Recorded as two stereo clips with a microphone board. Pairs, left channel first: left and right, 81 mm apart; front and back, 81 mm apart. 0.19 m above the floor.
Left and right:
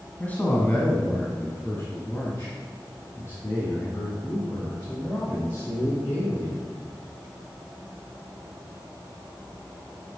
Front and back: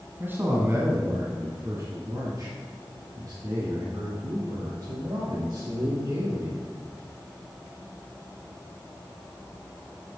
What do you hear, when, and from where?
0.2 s a man speaking: 145° left, 1.6 m